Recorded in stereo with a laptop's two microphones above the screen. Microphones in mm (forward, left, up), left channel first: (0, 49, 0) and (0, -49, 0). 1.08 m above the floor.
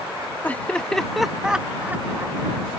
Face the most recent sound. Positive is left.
turn(degrees=-25)  # may be behind; listen again after turning